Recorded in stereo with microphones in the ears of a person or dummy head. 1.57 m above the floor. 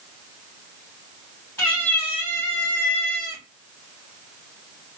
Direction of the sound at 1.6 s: 15° left (ahead or behind).